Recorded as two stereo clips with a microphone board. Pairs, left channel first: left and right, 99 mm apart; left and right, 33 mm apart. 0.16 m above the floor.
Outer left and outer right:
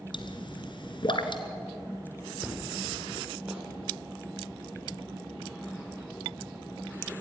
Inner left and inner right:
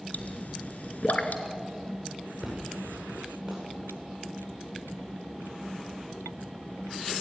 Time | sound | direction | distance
0.1 | a pop | 55° left (ahead or behind) | 1.6 m
2.4 | an explosion | 10° right (ahead or behind) | 9.5 m